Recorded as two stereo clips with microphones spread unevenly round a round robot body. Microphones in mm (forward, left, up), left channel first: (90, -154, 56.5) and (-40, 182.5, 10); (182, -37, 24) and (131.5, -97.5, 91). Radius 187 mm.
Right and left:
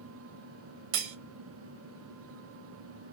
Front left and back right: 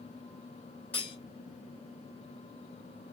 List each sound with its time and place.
0.9 s cutlery clinking: 120° left, 0.9 m